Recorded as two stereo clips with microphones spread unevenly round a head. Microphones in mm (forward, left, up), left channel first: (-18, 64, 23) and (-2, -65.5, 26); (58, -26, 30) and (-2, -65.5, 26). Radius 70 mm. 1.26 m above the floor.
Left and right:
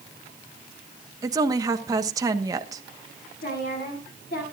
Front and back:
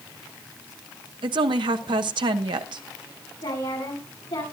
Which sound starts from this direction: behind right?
A woman speaking, at 1.2 s.